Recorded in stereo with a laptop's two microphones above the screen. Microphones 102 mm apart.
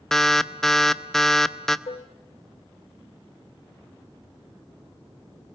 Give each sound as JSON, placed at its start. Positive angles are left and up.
{"t": 0.1, "sound": "an alarm", "side_deg": 5, "distance_m": 0.6}
{"t": 1.9, "sound": "dishes clattering", "side_deg": 80, "distance_m": 0.7}